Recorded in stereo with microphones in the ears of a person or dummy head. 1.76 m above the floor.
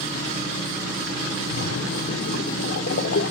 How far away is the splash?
About 1.1 m.